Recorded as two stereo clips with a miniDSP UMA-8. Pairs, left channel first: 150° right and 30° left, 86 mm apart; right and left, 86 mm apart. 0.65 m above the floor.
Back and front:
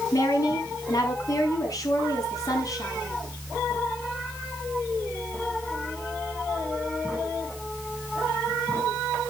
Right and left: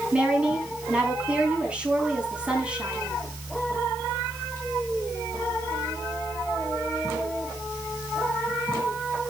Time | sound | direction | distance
0.1 | a woman speaking | 165° left | 5.5 m